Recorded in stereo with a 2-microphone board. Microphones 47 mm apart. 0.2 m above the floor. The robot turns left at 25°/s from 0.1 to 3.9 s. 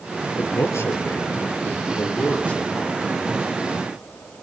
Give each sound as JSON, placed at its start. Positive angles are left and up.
{"t": 0.4, "sound": "a man speaking", "side_deg": 70, "distance_m": 4.0}